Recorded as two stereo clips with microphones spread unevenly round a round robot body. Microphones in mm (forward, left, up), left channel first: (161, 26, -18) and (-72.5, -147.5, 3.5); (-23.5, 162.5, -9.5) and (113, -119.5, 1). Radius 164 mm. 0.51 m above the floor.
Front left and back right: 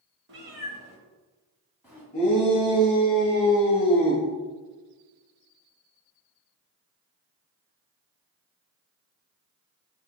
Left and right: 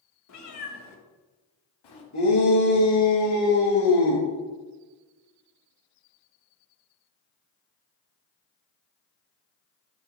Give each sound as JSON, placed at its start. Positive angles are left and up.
{"t": 0.3, "sound": "a cat meowing", "azimuth_deg": 160, "distance_m": 1.0}
{"t": 2.1, "sound": "a shout", "azimuth_deg": 95, "distance_m": 3.0}